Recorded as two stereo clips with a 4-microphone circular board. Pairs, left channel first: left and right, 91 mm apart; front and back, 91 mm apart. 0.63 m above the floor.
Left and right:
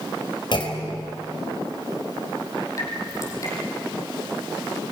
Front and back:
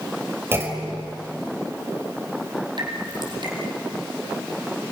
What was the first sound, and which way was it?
A clunk, 120° left.